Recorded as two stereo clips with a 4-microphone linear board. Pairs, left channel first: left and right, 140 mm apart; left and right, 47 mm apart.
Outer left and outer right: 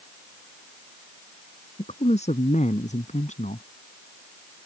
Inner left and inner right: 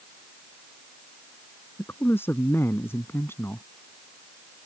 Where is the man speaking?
55° left (ahead or behind); by 3.7 s 65° left (ahead or behind).